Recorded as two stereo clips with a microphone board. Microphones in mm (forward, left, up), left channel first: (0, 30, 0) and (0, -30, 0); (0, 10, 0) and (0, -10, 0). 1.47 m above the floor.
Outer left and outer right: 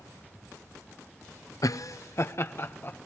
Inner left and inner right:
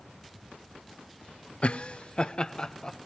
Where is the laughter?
70° left (ahead or behind), 0.6 m; by 3.0 s 35° left (ahead or behind), 1.6 m.